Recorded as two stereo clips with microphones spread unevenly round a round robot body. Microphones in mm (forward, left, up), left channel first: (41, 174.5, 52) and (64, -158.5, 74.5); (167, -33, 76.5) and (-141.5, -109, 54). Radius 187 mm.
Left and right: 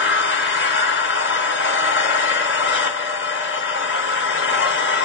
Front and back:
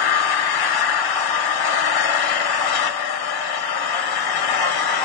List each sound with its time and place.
0.0 s an engine running: 35° left, 1.4 m